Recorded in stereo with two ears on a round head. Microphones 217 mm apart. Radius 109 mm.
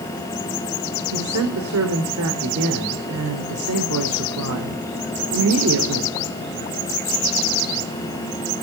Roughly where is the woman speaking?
Right.